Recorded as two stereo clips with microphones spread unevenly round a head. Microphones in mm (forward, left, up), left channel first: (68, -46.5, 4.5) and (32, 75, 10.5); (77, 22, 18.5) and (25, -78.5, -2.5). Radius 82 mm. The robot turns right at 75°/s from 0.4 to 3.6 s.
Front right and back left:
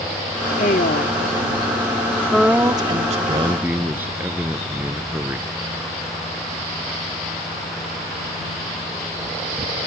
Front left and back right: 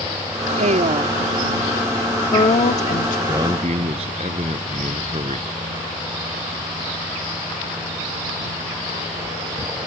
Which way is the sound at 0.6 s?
115° right.